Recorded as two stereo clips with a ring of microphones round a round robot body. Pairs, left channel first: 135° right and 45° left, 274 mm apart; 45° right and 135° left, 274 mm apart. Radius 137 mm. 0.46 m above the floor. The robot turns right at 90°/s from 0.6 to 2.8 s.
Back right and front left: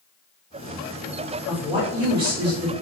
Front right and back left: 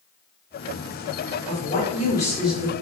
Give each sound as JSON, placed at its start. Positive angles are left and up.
{"t": 1.5, "sound": "a woman speaking", "azimuth_deg": -40, "distance_m": 0.8}